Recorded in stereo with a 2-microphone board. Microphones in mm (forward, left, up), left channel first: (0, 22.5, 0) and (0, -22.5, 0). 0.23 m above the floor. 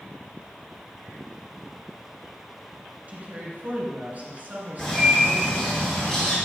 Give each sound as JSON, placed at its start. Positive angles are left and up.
{"t": 3.1, "sound": "a woman speaking", "side_deg": -40, "distance_m": 2.5}
{"t": 4.8, "sound": "a bird", "side_deg": 15, "distance_m": 3.0}